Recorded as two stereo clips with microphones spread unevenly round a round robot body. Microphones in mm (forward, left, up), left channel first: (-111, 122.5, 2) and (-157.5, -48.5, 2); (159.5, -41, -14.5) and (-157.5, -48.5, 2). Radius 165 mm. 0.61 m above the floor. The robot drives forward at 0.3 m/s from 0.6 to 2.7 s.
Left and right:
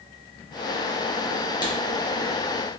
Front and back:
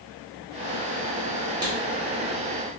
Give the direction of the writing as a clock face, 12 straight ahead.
8 o'clock.